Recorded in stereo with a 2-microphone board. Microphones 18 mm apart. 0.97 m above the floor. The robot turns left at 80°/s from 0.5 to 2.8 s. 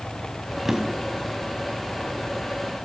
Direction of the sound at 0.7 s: 25° right (ahead or behind).